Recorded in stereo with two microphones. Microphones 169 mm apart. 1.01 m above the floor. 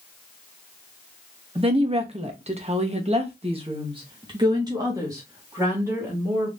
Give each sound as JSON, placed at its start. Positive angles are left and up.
{"t": 1.6, "sound": "a woman speaking", "side_deg": -35, "distance_m": 1.1}